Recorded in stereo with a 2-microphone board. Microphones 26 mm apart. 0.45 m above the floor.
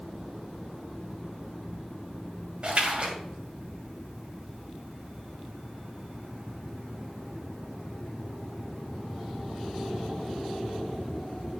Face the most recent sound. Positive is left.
turn(degrees=-40)  # may be behind; listen again after turning